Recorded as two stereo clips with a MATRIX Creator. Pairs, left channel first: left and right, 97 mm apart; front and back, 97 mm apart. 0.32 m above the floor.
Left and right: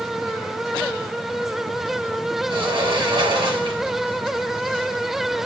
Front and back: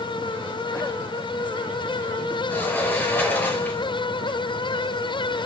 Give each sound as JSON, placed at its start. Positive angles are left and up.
{"t": 2.5, "sound": "a sliding door", "azimuth_deg": -65, "distance_m": 1.6}